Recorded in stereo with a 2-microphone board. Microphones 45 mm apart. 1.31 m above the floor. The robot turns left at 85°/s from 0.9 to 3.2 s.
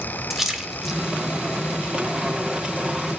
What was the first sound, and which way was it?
A splash, centre (ahead or behind).